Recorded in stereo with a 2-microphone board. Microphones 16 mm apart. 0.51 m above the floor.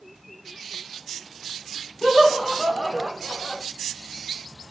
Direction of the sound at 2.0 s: 60° right (ahead or behind).